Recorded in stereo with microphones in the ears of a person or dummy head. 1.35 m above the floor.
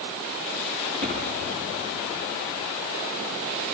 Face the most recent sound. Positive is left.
turn(degrees=-55)  # may be behind; listen again after turning